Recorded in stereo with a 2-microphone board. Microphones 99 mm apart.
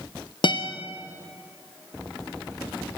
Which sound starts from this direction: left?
A guitar, at 0.4 s.